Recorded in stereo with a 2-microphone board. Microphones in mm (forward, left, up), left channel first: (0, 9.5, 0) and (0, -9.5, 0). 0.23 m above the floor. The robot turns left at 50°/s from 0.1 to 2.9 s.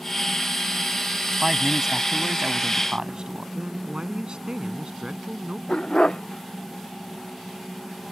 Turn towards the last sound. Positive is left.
turn(degrees=45)  # may be behind; listen again after turning